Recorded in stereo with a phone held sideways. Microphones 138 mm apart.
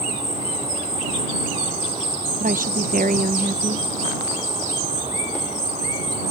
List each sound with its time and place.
0.0 s an insect: 55° right (ahead or behind)
2.4 s a woman speaking: 80° right